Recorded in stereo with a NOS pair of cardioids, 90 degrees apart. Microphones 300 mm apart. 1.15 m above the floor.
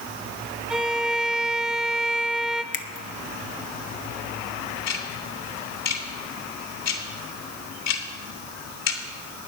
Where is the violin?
Straight ahead, 0.7 m.